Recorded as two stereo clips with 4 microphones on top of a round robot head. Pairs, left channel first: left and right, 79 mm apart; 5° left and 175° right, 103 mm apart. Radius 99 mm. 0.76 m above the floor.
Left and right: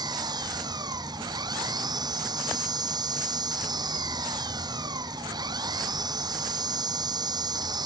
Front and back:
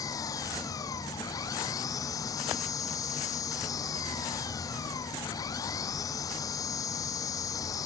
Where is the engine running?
60° right.